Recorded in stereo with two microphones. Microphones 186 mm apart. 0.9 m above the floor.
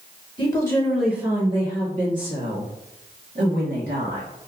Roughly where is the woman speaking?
Left.